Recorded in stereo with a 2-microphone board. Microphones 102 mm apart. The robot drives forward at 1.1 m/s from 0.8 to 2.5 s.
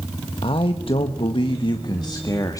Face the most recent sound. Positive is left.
turn(degrees=35)  # may be behind; listen again after turning